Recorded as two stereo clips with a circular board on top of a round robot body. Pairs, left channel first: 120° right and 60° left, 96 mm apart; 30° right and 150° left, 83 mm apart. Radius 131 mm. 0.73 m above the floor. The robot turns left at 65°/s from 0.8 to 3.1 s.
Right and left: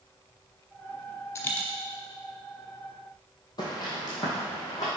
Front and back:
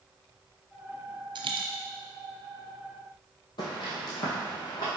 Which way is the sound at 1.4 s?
175° left.